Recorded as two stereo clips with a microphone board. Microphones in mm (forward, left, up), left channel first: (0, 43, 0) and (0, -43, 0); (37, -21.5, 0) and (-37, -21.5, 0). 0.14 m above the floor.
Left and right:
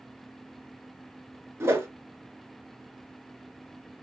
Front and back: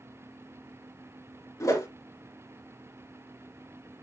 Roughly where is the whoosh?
Ahead right.